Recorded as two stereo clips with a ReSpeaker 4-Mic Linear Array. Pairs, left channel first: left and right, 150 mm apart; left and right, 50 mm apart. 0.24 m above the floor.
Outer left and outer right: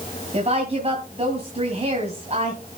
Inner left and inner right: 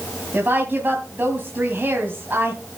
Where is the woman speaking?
45° right (ahead or behind), 2 m.